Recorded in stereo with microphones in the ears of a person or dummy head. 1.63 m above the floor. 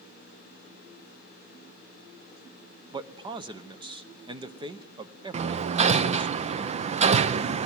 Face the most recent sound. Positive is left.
turn(degrees=-40)  # may be behind; listen again after turning